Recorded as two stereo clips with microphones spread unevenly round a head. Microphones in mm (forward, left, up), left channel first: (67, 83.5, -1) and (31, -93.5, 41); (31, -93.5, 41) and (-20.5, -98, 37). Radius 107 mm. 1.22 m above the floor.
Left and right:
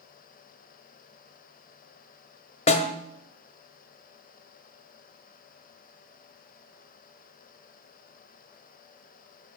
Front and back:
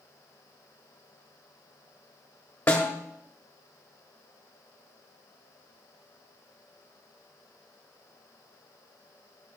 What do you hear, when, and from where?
2.7 s a snare drum: 25° left, 1.0 m